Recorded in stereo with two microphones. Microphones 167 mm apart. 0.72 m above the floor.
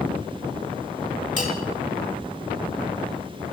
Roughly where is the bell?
Left.